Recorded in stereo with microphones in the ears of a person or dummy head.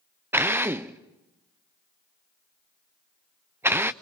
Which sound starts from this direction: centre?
A drill, at 0.3 s.